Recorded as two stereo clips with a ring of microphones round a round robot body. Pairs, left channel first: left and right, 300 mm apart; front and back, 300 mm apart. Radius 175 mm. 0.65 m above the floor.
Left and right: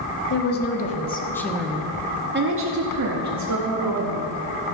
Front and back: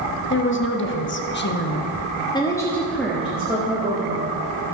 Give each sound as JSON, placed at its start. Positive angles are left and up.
{"t": 0.3, "sound": "a woman speaking", "azimuth_deg": 45, "distance_m": 1.4}